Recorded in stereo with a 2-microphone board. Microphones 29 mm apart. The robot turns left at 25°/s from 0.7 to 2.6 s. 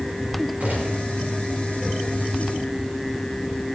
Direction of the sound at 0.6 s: 60° right (ahead or behind).